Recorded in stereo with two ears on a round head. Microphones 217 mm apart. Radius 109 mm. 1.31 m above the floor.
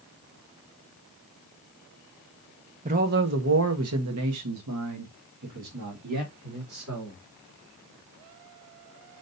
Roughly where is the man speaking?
Right.